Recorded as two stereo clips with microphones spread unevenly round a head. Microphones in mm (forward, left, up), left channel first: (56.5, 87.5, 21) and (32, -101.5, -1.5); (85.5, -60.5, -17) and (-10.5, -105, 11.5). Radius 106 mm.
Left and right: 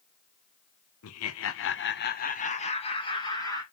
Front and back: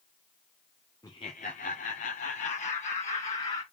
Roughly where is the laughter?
Left.